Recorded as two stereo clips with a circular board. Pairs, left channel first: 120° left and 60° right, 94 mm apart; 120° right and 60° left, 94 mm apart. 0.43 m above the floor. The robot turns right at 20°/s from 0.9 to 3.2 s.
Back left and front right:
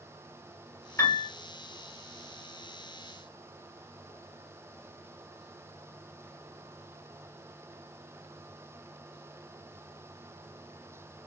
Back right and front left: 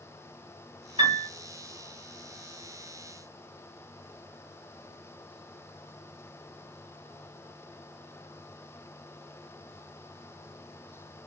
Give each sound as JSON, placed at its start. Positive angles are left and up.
{"t": 1.0, "sound": "a piano", "azimuth_deg": 65, "distance_m": 0.9}